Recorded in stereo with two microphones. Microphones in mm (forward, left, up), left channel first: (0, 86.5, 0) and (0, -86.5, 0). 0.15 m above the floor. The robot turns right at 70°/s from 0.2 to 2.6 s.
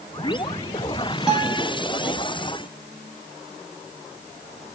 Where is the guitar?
5° right, 3 m; by 1.7 s 30° left, 3 m.